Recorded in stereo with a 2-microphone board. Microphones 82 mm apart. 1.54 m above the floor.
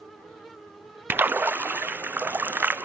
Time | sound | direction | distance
1.1 | a splash | 25° right (ahead or behind) | 0.6 m